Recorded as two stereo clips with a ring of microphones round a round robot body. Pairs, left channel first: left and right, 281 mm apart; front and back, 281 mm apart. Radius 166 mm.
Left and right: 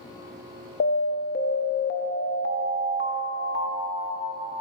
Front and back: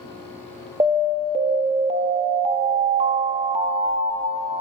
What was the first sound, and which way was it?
An alarm, 120° left.